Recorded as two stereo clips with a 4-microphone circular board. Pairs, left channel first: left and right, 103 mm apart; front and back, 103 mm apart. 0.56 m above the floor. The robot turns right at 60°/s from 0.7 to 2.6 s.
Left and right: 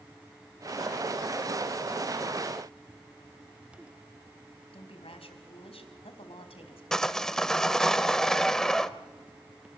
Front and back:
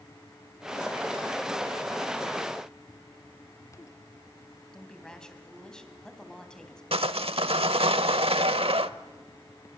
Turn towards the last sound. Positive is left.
turn(degrees=175)